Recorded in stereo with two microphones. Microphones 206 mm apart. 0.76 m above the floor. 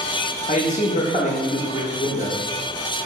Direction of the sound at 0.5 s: 35° left (ahead or behind).